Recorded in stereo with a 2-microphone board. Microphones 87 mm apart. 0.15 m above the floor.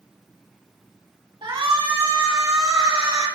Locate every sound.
1.4 s a shout: 70° right (ahead or behind), 4 m